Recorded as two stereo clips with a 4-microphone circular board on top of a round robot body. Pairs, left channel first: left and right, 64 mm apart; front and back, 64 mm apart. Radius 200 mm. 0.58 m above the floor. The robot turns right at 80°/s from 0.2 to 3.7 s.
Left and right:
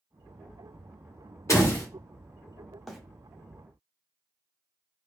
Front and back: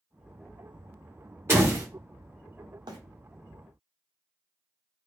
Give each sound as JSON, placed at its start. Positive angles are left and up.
{"t": 1.5, "sound": "a door slam", "azimuth_deg": 125, "distance_m": 1.7}
{"t": 2.9, "sound": "a bird", "azimuth_deg": 180, "distance_m": 0.7}